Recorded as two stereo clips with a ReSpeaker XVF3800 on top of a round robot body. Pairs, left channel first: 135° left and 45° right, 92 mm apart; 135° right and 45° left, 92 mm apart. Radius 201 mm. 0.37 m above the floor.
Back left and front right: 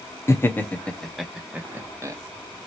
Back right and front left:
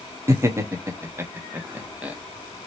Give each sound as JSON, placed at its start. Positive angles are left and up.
{"t": 0.3, "sound": "laughter", "azimuth_deg": 85, "distance_m": 1.5}